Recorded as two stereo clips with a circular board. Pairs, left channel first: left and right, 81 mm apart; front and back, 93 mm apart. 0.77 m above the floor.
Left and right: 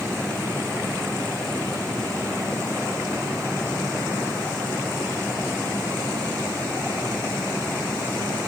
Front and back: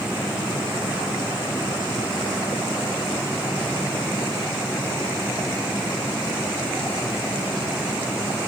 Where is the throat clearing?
I don't hear throat clearing.